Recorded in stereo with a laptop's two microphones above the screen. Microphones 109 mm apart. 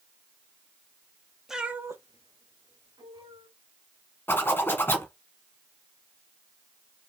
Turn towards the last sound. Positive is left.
turn(degrees=20)  # may be behind; listen again after turning